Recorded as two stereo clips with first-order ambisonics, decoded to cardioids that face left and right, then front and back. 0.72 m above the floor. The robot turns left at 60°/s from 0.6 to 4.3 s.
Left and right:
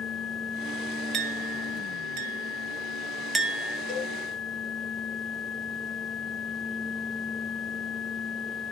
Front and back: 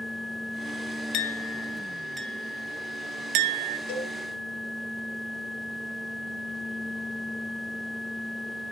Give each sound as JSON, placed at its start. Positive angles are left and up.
{"t": 1.1, "sound": "a clink", "azimuth_deg": -35, "distance_m": 0.9}
{"t": 3.9, "sound": "a cowbell", "azimuth_deg": 30, "distance_m": 3.5}